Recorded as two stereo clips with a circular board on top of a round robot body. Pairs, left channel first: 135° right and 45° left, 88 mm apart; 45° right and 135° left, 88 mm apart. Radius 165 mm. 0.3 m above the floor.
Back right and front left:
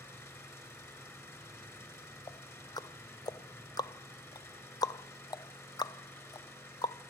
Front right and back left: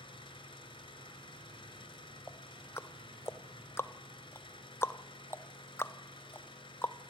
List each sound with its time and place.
0.0 s an engine running: 70° right, 4 m
2.3 s ticking: 105° right, 0.9 m